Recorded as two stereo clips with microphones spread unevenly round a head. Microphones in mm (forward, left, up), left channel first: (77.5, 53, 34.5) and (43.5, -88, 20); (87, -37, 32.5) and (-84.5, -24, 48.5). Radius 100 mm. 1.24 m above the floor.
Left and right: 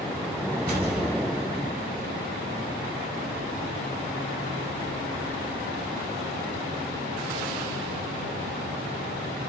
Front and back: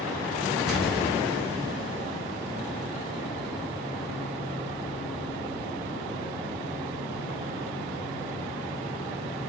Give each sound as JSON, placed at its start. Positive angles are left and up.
{"t": 0.7, "sound": "an explosion", "azimuth_deg": -95, "distance_m": 2.0}